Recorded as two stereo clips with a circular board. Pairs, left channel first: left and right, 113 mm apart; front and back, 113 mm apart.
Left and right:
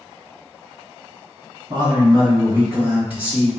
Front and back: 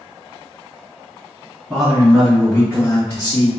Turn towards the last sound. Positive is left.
turn(degrees=-5)